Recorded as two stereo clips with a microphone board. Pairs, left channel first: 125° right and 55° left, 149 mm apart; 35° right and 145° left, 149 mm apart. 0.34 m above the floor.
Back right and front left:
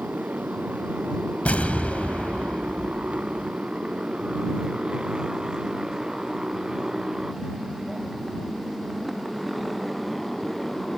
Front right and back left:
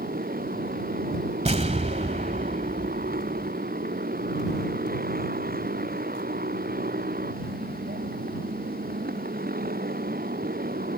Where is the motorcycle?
135° left; by 11.0 s 145° left.